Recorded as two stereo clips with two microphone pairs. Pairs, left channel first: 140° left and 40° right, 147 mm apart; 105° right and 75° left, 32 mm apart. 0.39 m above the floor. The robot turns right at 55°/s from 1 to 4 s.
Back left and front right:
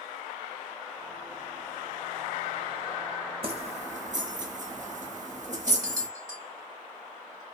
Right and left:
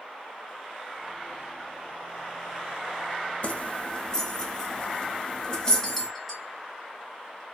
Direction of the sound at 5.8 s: 10° right.